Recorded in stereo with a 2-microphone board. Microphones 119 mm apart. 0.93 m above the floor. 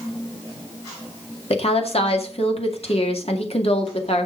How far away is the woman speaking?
About 2 m.